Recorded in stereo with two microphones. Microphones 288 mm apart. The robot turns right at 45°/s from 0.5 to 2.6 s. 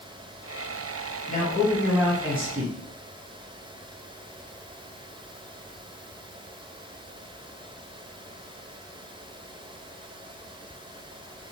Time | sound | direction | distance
1.3 | a man speaking | 150° left | 1.3 m